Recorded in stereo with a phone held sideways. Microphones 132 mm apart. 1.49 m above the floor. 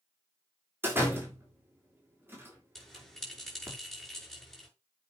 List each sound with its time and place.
0.8 s a door slam: 15° right (ahead or behind), 3.5 m
2.8 s a bell: centre (ahead or behind), 6 m